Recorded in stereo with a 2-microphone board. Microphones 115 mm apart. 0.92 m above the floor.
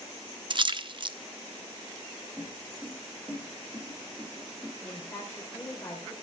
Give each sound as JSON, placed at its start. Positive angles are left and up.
{"t": 0.5, "sound": "a splash", "side_deg": -45, "distance_m": 0.6}
{"t": 2.4, "sound": "footsteps", "side_deg": -15, "distance_m": 3.5}
{"t": 4.8, "sound": "a woman speaking", "side_deg": 15, "distance_m": 3.5}